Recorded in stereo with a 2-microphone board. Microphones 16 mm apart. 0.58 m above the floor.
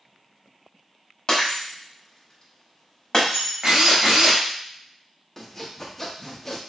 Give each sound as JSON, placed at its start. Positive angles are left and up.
{"t": 1.3, "sound": "breaking glass", "side_deg": 45, "distance_m": 1.1}
{"t": 3.6, "sound": "a drill", "side_deg": -50, "distance_m": 1.2}
{"t": 5.4, "sound": "sawing", "side_deg": 20, "distance_m": 0.6}